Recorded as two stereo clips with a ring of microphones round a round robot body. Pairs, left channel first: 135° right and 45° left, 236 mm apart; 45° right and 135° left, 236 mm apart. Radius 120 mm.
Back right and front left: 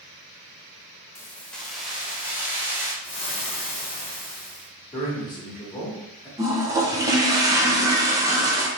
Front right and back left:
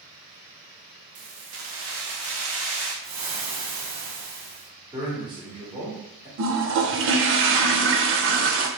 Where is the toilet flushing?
120° left, 0.6 m.